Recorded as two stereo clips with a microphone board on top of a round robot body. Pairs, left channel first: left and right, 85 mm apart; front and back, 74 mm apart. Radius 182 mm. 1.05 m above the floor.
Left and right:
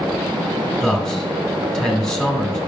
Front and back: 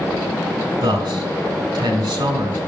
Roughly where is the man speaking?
Behind.